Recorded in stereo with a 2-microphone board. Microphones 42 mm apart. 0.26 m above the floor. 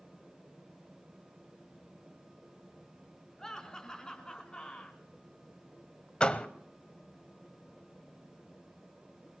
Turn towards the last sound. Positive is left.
turn(degrees=25)  # may be behind; listen again after turning